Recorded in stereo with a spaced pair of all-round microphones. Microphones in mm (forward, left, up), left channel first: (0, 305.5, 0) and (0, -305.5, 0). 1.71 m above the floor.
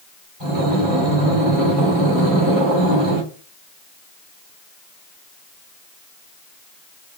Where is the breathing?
35° left (ahead or behind), 2.5 m.